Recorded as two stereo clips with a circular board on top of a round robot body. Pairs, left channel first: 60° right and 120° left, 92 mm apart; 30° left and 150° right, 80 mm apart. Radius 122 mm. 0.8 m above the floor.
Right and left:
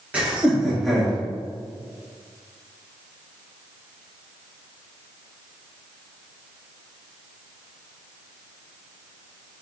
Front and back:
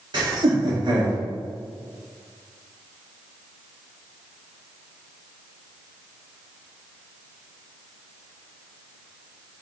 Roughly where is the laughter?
Behind.